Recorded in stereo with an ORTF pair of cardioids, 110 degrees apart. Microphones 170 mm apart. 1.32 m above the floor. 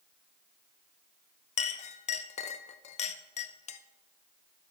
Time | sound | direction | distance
1.6 | a clink | 40° left | 0.7 m